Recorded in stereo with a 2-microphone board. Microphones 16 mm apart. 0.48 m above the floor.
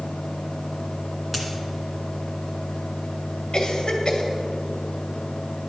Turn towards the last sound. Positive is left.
turn(degrees=50)  # may be behind; listen again after turning